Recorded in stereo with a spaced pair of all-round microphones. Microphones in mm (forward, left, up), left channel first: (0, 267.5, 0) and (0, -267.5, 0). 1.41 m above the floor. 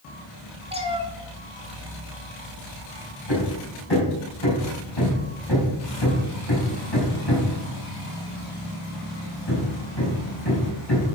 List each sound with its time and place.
0.7 s a cat meowing: 10° right (ahead or behind), 1.3 m
3.3 s hammering: 50° left (ahead or behind), 4.5 m